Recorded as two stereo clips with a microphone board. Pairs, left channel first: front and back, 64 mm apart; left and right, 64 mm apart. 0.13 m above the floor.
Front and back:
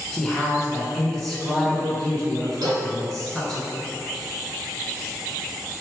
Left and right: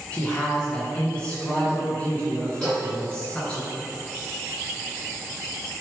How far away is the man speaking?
About 1.2 m.